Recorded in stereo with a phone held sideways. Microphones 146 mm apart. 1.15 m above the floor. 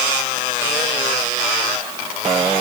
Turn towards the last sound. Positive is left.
No sound to turn to.